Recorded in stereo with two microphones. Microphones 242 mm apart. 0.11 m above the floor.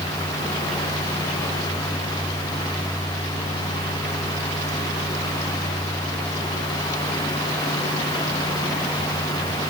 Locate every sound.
Only background noise.